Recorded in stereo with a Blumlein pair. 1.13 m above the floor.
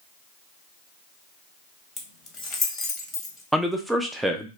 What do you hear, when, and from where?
2.0 s keys jangling: 20° left, 0.8 m
3.5 s a man speaking: 5° right, 0.6 m